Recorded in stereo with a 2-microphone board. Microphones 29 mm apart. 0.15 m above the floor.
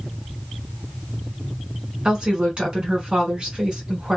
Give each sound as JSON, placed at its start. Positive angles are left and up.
{"t": 2.0, "sound": "a woman speaking", "side_deg": -30, "distance_m": 1.7}